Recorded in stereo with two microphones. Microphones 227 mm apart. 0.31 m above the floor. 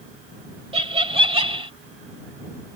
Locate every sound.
0.7 s laughter: 25° right (ahead or behind)